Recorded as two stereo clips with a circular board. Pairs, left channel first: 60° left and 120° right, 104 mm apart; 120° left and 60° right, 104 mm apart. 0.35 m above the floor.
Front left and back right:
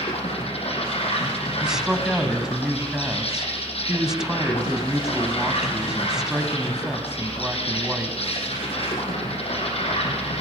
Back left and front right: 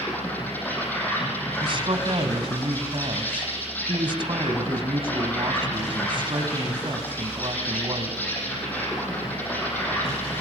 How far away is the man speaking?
About 2 m.